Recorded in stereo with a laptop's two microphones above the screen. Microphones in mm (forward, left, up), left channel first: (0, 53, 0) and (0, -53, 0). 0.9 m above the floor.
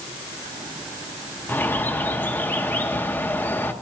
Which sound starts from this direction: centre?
A bird, at 1.5 s.